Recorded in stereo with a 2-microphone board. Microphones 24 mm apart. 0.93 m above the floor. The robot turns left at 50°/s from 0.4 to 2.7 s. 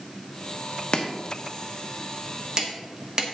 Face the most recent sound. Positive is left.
turn(degrees=-30)  # may be behind; listen again after turning